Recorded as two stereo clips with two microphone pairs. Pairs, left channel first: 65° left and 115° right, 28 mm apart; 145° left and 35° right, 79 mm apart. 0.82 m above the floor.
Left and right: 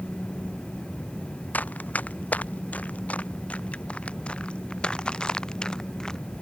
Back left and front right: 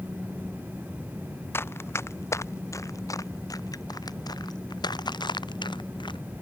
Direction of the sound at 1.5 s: 85° left.